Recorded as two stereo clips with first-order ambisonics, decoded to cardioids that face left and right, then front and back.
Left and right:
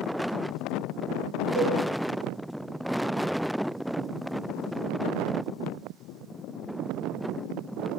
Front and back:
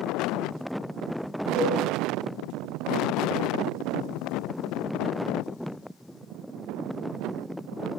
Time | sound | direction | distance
1.6 | a cowbell | 135° right | 7 m